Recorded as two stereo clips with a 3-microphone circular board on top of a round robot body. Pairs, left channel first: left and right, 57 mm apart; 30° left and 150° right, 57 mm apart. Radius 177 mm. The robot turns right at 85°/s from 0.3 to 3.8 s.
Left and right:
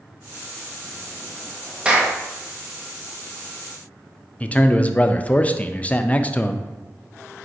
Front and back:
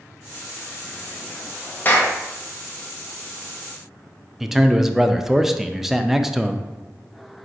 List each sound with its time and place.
1.9 s a clap: 20° right, 1.0 m; by 2.1 s straight ahead, 1.0 m
4.4 s a man speaking: 130° left, 0.5 m